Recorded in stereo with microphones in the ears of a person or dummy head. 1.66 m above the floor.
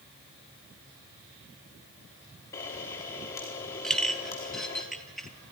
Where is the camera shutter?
15° left (ahead or behind), 1.3 m.